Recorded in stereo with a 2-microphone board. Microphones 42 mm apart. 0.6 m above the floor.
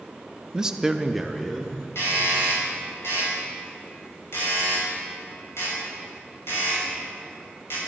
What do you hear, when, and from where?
0.5 s a man speaking: 15° right (ahead or behind), 0.8 m; by 1.8 s 5° left (ahead or behind), 1.4 m
1.9 s a doorbell: 65° left (ahead or behind), 5 m